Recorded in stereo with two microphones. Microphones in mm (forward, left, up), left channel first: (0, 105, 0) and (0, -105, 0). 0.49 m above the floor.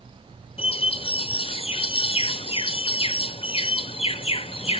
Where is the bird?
25° left (ahead or behind), 0.5 m.